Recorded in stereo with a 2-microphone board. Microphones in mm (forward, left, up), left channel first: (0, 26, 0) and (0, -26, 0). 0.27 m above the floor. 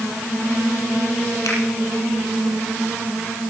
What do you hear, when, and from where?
1.4 s a finger snap: 75° left (ahead or behind), 6 m